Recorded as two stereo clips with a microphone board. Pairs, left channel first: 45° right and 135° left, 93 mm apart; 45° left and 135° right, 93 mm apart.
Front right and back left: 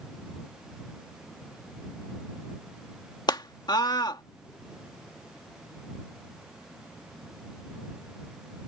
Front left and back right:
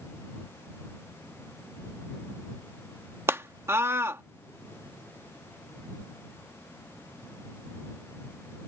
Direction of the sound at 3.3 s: 75° right.